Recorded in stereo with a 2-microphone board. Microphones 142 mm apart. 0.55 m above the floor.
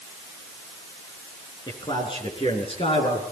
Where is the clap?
I don't hear a clap.